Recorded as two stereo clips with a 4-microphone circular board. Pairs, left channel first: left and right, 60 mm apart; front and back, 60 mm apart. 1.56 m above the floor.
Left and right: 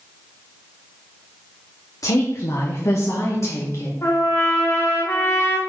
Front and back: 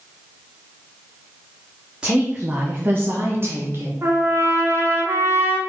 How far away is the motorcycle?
No motorcycle in this recording.